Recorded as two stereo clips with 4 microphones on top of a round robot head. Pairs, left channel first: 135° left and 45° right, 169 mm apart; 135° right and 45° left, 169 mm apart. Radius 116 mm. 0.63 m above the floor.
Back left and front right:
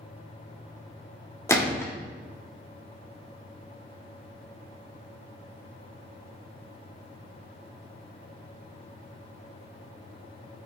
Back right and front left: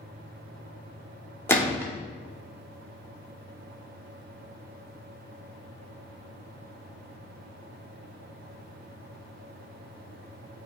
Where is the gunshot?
175° left, 1.2 m.